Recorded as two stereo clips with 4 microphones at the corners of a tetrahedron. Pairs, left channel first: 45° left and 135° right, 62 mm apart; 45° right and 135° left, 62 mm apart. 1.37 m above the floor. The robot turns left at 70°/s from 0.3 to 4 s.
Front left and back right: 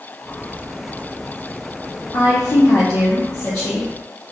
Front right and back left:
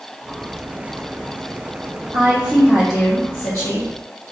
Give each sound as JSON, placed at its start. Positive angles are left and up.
{"t": 2.1, "sound": "a woman speaking", "azimuth_deg": 90, "distance_m": 0.5}